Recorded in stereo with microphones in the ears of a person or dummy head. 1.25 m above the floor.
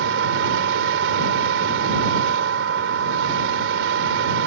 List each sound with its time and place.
0.0 s a machine running: 80° right